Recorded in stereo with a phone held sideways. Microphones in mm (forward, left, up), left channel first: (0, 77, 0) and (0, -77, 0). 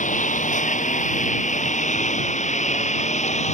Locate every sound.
0.0 s a lawn mower: 55° left (ahead or behind); by 3.5 s 50° left (ahead or behind)